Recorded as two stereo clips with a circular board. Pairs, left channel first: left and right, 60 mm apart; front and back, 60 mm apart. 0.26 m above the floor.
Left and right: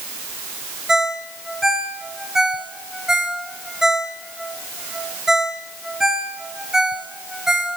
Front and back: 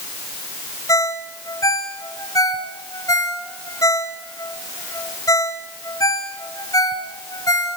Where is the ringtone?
10° right, 3 m.